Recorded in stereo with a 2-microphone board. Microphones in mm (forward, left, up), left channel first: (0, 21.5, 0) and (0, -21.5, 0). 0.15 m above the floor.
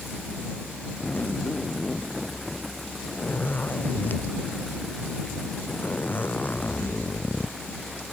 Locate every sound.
1.0 s a zipper: 45° left (ahead or behind)